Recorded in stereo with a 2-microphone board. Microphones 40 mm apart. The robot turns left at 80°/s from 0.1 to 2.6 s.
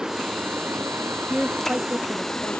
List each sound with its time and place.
0.0 s running water: 15° right; by 2.6 s 145° left
1.2 s a woman speaking: 5° left; by 2.6 s 105° right